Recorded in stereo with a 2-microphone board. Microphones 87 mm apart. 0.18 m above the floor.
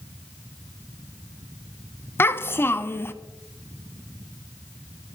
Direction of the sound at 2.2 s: 25° left (ahead or behind).